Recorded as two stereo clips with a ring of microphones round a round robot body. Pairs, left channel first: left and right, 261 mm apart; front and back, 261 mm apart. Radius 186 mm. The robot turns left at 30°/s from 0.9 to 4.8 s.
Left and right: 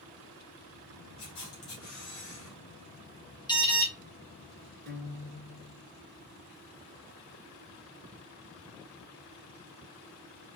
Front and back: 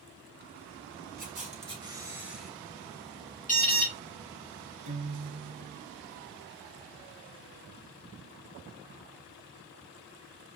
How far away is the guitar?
About 1.3 m.